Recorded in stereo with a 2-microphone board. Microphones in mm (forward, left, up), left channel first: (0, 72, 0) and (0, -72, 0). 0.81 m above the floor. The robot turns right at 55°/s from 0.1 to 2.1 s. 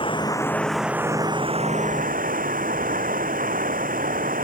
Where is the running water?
145° left; by 4.5 s 105° right.